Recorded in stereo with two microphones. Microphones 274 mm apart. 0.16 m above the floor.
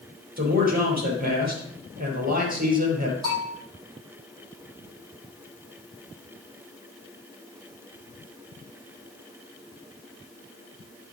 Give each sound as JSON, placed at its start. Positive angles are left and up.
{"t": 0.4, "sound": "a man speaking", "side_deg": -30, "distance_m": 4.0}
{"t": 3.2, "sound": "a bell", "side_deg": -15, "distance_m": 5.0}